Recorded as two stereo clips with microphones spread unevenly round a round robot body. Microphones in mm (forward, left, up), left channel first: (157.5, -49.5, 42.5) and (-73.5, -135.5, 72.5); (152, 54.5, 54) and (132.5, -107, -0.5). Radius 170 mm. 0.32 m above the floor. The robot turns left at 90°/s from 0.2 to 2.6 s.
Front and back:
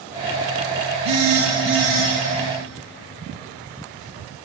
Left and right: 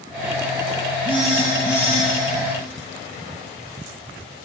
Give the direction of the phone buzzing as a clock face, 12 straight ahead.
5 o'clock.